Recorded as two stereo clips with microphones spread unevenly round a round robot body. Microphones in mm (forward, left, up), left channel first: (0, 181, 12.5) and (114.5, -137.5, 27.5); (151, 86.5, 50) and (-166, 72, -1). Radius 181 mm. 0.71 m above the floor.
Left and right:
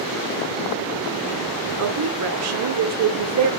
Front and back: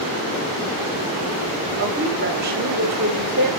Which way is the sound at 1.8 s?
120° right.